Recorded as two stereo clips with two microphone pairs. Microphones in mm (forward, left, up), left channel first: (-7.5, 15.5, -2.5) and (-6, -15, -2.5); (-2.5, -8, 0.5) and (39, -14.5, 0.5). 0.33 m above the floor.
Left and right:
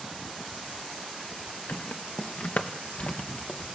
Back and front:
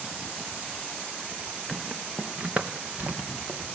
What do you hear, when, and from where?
1.7 s footsteps: 80° left, 1.2 m; by 3.6 s 40° left, 3.5 m